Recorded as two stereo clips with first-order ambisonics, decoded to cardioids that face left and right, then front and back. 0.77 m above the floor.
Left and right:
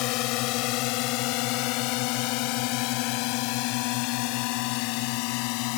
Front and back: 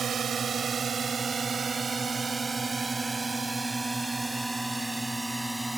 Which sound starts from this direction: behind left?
A drone, at 0.0 s.